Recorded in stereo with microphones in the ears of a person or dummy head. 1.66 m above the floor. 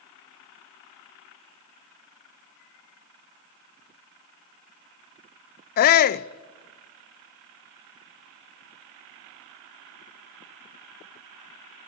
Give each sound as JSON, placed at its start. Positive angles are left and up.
{"t": 5.8, "sound": "a shout", "side_deg": 45, "distance_m": 0.6}